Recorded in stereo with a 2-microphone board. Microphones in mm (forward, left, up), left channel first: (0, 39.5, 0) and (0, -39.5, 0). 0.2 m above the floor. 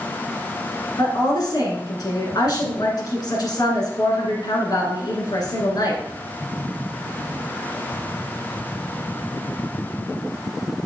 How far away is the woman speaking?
About 1.9 m.